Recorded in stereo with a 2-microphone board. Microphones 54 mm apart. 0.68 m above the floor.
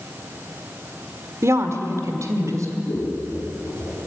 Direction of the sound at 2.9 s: 60° left (ahead or behind).